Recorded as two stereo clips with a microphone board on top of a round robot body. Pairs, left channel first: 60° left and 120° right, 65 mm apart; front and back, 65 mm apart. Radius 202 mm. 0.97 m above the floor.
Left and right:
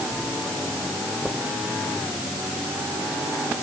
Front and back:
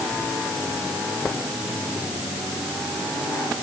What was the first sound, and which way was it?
Only background noise.